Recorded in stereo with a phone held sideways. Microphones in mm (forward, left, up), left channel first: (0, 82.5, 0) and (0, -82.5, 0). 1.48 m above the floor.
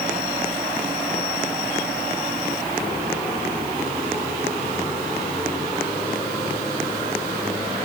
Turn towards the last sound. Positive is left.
No sound to turn to.